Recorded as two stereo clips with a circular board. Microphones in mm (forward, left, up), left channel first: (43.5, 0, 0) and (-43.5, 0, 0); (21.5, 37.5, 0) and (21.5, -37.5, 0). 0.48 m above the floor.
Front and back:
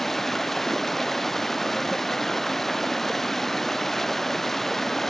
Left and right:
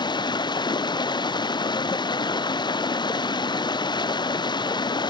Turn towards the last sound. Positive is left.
turn(degrees=85)